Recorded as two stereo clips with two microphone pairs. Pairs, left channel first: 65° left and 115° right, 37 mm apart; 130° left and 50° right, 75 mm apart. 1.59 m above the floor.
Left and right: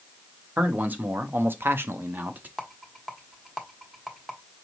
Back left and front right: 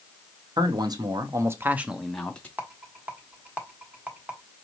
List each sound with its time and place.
0.6 s a man speaking: 70° right, 1.0 m; by 2.5 s 160° right, 0.7 m
2.6 s a rattle: 45° right, 1.1 m